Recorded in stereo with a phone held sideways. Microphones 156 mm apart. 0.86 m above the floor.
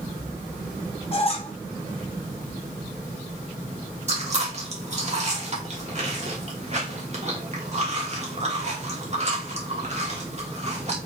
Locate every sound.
1.1 s a squeak: 40° left (ahead or behind), 1.1 m
4.1 s chewing: 45° right (ahead or behind), 1.5 m